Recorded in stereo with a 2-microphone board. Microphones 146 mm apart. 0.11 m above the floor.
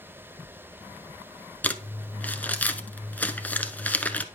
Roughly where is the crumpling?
Centre.